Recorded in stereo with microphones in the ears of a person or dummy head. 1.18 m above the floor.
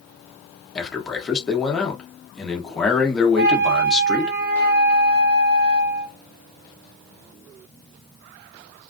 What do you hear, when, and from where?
0.8 s a man speaking: 5° left (ahead or behind), 0.9 m
3.4 s a flute: 50° right (ahead or behind), 0.7 m